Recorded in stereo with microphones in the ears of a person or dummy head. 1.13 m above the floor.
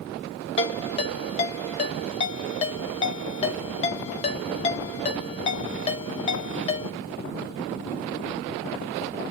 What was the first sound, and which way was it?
A ringtone, 35° left (ahead or behind).